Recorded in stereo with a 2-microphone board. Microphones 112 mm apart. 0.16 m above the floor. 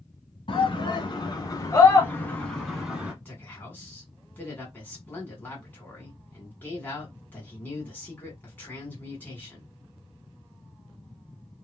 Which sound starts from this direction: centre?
A man speaking, at 3.2 s.